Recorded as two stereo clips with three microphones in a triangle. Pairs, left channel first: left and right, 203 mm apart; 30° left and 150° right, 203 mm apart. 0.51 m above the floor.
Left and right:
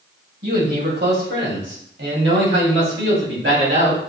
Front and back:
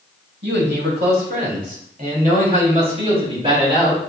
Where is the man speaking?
125° right, 2.5 m; by 4.0 s 80° right, 3 m.